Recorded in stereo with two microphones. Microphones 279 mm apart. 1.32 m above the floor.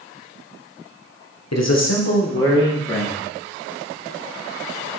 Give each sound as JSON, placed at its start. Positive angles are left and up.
{"t": 1.5, "sound": "a man speaking", "side_deg": 65, "distance_m": 1.1}